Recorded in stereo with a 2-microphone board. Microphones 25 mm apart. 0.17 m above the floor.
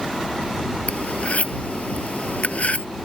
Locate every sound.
0.9 s cutlery clinking: 60° left (ahead or behind)